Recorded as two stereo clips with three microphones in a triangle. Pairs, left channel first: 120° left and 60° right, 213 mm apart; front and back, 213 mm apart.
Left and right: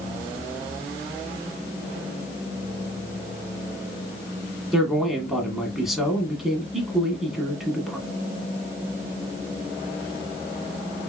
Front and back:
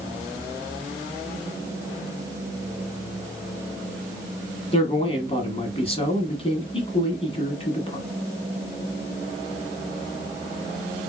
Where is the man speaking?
30° left, 1.2 m.